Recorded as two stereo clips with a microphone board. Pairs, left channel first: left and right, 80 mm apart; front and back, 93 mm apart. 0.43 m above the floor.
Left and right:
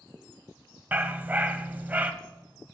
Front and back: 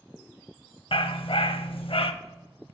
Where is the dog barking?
20° right, 0.5 m.